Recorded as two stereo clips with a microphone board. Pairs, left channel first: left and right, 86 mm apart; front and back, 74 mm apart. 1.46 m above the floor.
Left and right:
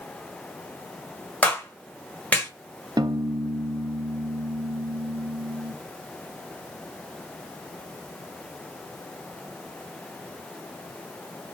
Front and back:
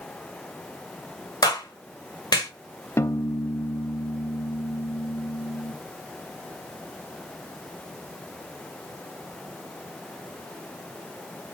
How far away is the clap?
About 1.6 m.